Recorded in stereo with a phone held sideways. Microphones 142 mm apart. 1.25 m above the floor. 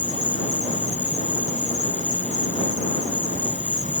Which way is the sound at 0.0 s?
55° right (ahead or behind).